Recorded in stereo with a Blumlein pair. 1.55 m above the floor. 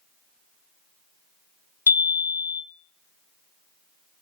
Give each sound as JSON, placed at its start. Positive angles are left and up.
{"t": 1.9, "sound": "a chime", "azimuth_deg": 70, "distance_m": 0.9}